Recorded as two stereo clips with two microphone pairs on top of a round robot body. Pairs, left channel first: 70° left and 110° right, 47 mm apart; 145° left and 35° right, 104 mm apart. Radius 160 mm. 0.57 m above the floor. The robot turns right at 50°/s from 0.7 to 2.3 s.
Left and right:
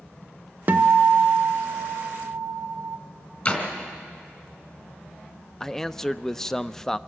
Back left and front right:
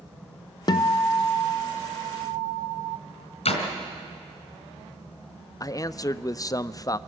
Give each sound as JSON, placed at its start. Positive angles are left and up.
{"t": 0.7, "sound": "a guitar", "azimuth_deg": -165, "distance_m": 0.6}
{"t": 3.5, "sound": "a door slam", "azimuth_deg": 125, "distance_m": 3.0}
{"t": 5.6, "sound": "a man speaking", "azimuth_deg": 145, "distance_m": 0.7}